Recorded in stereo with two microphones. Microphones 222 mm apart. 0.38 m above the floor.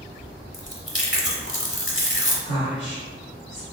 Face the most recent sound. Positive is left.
turn(degrees=35)  # may be behind; listen again after turning